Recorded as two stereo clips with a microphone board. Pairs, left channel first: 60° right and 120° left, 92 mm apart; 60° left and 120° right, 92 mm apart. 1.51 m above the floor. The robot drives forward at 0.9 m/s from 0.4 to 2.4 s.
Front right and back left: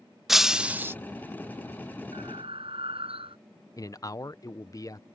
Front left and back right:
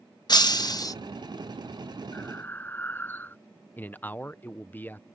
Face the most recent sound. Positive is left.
turn(degrees=-10)